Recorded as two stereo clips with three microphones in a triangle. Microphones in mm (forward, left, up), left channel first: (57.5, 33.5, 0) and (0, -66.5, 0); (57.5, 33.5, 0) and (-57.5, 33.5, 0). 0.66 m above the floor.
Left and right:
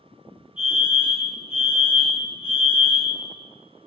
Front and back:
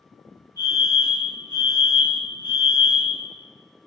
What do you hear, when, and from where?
0.6 s a fire alarm: 50° left, 3 m